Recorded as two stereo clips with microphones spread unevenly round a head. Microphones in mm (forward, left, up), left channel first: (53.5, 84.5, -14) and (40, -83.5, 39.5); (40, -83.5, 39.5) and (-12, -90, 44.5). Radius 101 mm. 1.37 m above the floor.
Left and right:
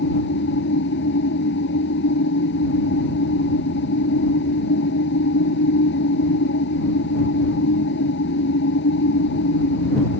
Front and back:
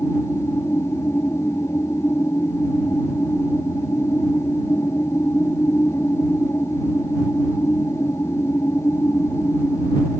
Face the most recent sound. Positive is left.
turn(degrees=70)